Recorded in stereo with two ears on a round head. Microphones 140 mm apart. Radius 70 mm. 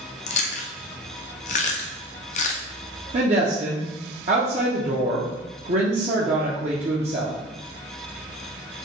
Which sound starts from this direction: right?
A woman speaking, at 3.1 s.